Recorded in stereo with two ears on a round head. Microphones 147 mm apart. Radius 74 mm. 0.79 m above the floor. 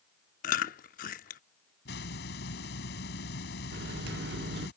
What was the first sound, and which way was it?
Chewing, 50° left (ahead or behind).